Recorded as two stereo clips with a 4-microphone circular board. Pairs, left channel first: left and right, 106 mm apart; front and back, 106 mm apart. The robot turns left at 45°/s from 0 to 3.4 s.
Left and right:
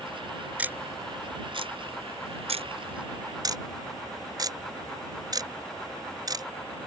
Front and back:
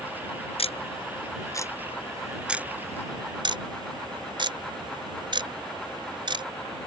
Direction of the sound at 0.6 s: 15° right.